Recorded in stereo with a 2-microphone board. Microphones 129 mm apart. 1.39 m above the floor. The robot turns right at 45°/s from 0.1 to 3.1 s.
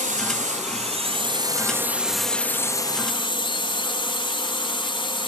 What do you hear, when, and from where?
0.0 s a drone: 95° right; by 5.3 s 40° left